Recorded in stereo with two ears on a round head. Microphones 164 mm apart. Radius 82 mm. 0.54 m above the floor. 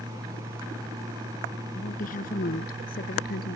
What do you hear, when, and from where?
1.8 s a woman speaking: 45° left (ahead or behind); by 3.6 s 55° left (ahead or behind)